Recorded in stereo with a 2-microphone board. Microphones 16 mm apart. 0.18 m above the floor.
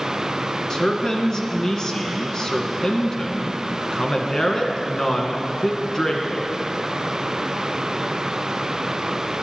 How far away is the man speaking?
About 1.6 m.